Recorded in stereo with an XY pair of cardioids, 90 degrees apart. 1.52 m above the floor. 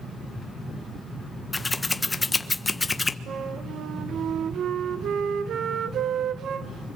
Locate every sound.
1.5 s scissors: 25° left, 1.3 m
3.3 s a flute: 70° right, 1.4 m